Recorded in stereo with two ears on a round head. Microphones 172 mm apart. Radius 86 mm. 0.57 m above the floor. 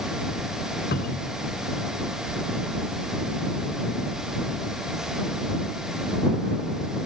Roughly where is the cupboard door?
Left.